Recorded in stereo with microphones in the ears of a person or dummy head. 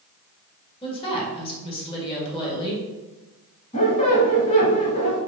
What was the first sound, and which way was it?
A woman speaking, 30° left (ahead or behind).